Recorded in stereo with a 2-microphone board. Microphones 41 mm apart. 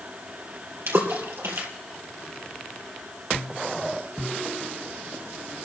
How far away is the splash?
About 3 m.